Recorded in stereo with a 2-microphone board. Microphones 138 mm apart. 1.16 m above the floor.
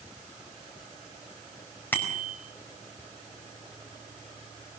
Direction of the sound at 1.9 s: 15° left (ahead or behind).